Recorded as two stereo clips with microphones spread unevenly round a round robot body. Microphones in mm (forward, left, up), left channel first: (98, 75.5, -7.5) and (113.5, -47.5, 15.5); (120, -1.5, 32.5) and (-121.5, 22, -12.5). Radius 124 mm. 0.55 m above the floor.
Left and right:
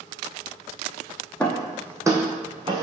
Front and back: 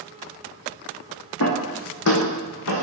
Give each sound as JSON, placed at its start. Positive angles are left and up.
{"t": 1.4, "sound": "footsteps", "azimuth_deg": 15, "distance_m": 1.7}